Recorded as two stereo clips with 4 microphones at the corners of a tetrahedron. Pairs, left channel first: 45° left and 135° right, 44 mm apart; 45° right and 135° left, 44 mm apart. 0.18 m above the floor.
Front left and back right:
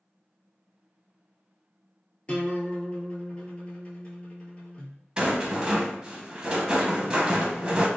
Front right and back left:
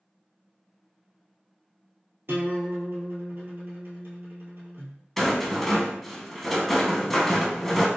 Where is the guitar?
110° left, 0.9 m.